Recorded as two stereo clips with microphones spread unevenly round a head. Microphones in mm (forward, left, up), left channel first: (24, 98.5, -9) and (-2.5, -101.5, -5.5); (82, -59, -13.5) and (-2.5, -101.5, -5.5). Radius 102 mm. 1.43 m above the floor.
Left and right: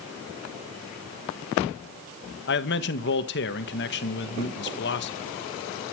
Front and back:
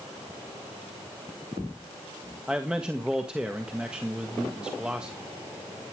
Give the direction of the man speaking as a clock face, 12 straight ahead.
8 o'clock.